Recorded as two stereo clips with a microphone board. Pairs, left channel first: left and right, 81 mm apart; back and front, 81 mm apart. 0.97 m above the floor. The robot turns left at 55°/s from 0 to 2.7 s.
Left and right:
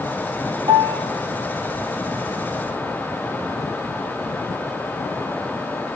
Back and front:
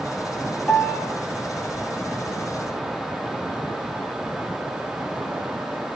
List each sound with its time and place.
0.7 s a piano: 105° right, 0.8 m; by 1.0 s 125° right, 0.8 m